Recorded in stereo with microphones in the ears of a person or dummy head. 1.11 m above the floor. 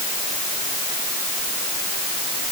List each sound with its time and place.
Only background noise.